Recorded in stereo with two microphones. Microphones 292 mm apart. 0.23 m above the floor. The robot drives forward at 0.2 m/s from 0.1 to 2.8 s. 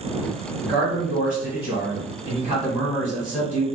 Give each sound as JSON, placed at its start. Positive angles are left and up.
{"t": 0.6, "sound": "a man speaking", "side_deg": -5, "distance_m": 1.1}